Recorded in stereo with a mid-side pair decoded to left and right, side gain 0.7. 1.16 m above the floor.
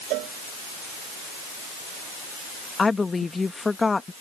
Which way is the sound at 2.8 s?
15° left.